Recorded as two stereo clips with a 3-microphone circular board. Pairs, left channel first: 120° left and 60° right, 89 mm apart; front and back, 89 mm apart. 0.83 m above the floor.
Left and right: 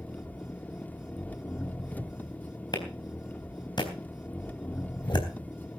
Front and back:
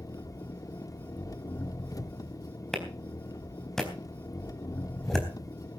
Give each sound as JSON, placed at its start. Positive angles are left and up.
{"t": 0.0, "sound": "an engine running", "azimuth_deg": 50, "distance_m": 0.9}
{"t": 2.7, "sound": "a clap", "azimuth_deg": 85, "distance_m": 4.0}